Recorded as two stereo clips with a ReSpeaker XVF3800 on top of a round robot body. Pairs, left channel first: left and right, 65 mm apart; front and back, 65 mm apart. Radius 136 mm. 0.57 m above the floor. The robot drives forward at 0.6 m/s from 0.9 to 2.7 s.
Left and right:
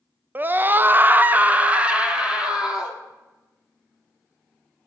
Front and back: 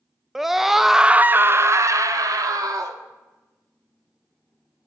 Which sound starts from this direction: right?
A scream, at 0.3 s.